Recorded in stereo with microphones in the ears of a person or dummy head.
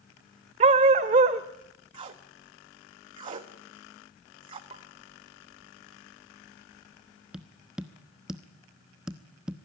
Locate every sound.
0.6 s a dog barking: 30° right (ahead or behind), 1.2 m
1.9 s tape being pulled: 30° right (ahead or behind), 1.2 m
4.7 s a pop: 25° right (ahead or behind), 1.8 m
7.3 s tapping: 5° right (ahead or behind), 0.9 m